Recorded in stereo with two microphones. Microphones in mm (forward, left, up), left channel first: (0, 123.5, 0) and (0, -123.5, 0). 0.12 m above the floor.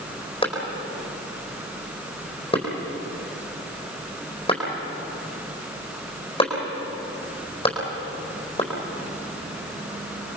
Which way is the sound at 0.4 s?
20° left (ahead or behind).